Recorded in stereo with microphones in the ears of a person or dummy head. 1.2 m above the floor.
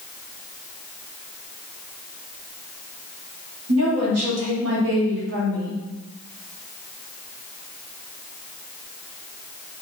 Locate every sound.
3.7 s a woman speaking: 70° right (ahead or behind), 1.1 m; by 5.8 s 50° right (ahead or behind), 1.4 m